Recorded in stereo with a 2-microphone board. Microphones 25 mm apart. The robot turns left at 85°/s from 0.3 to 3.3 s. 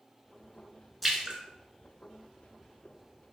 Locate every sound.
1.0 s a splash: centre (ahead or behind), 0.7 m; by 1.4 s 30° right (ahead or behind), 0.7 m